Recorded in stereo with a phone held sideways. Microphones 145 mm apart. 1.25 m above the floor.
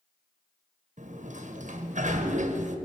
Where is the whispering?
No whispering in this recording.